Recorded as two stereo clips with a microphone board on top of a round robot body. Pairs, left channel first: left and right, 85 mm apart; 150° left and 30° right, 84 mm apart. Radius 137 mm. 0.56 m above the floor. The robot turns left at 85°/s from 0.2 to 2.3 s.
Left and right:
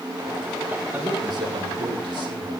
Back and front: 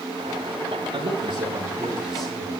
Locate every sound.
0.9 s a man speaking: 15° right, 9 m; by 2.5 s 130° right, 9 m